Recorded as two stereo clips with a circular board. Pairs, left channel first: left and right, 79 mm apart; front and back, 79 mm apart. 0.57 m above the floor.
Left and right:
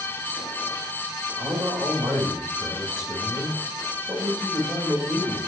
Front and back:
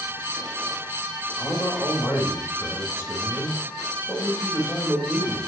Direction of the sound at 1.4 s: 60° right.